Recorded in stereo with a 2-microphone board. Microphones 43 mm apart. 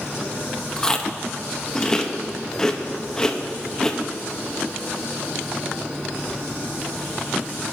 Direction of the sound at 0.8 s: 15° left (ahead or behind).